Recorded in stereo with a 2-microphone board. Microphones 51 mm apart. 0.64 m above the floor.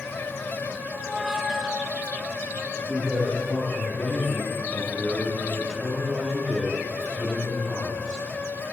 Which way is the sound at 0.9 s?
10° right (ahead or behind).